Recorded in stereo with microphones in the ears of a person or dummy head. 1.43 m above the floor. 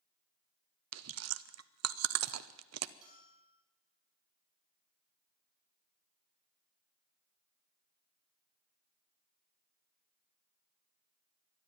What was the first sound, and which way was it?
Chewing, 80° right.